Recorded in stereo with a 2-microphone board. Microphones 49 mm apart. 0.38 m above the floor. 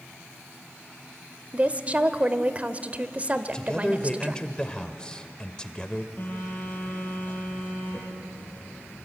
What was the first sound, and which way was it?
A woman speaking, 30° right (ahead or behind).